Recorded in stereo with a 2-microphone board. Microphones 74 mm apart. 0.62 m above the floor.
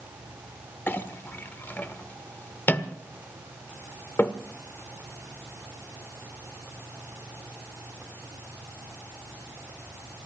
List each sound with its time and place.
0.9 s a clink: 30° left (ahead or behind), 0.9 m